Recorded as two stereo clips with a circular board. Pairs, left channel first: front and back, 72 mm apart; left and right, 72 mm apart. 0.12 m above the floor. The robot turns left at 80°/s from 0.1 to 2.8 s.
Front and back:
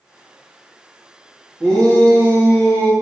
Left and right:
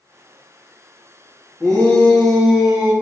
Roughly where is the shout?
Ahead left.